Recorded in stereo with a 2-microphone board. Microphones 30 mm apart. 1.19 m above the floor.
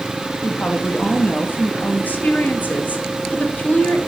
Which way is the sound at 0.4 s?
70° left (ahead or behind).